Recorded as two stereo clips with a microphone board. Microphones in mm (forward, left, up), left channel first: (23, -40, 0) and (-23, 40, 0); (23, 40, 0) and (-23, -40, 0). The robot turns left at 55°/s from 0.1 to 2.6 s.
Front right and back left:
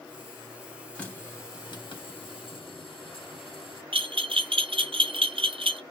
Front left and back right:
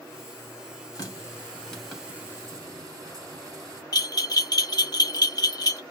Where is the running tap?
20° left, 1.0 m; by 3.8 s 70° right, 1.0 m.